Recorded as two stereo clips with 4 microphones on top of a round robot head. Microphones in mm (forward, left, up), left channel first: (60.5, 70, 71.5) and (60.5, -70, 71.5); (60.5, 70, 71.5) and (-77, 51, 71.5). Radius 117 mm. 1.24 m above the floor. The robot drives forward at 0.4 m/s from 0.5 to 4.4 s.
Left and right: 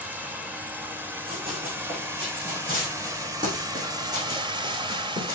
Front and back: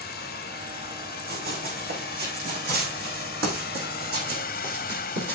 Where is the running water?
10° right, 2.5 m; by 5.3 s 35° right, 0.9 m.